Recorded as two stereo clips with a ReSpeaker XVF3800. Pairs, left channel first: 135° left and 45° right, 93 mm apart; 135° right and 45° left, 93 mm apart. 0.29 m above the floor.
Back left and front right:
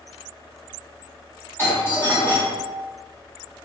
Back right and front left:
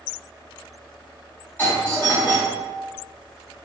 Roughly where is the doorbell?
Behind.